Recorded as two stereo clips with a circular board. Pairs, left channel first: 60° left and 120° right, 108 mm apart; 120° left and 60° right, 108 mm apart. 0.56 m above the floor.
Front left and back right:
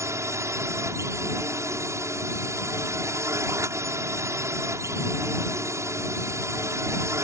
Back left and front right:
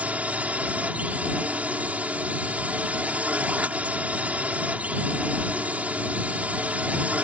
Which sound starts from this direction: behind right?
A drone, at 0.0 s.